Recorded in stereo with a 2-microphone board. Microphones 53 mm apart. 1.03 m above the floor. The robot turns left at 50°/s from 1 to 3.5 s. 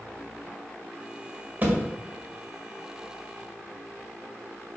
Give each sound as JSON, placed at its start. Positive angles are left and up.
{"t": 1.6, "sound": "a thud", "side_deg": -35, "distance_m": 1.5}